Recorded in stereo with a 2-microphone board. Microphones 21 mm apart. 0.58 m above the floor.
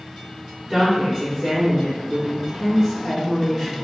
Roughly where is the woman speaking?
Centre.